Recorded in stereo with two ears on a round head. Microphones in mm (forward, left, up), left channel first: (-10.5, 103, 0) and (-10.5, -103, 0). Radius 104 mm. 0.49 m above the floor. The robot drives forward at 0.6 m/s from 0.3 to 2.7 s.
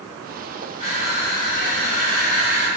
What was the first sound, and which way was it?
Crushing, 25° left (ahead or behind).